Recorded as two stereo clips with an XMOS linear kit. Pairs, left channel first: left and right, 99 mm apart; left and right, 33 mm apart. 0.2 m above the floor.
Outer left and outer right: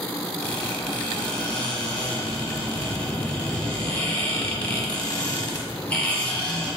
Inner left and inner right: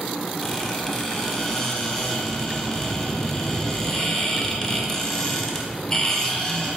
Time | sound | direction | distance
0.4 | a squeak | 10° left (ahead or behind) | 0.8 m